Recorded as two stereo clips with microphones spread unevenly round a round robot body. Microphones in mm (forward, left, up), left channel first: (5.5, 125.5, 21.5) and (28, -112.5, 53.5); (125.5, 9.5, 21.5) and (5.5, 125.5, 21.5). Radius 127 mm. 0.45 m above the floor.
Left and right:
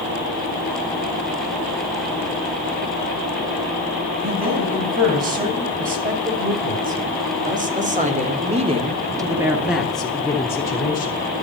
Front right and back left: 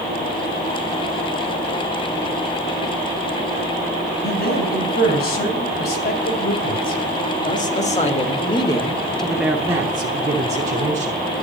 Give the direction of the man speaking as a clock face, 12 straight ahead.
1 o'clock.